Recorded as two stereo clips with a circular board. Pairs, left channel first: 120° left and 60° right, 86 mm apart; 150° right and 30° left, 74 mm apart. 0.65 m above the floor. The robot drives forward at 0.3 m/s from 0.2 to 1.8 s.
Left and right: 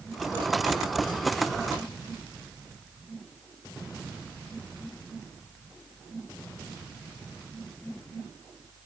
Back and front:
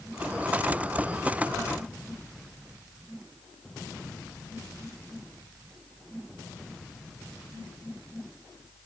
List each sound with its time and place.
Only background noise.